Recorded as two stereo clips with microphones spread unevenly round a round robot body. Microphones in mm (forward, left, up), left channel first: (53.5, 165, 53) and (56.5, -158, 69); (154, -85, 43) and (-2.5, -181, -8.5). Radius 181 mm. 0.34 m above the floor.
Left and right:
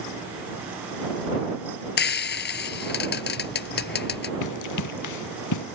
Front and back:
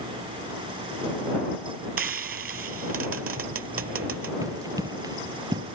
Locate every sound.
2.0 s frying: 155° left
4.4 s running footsteps: 130° left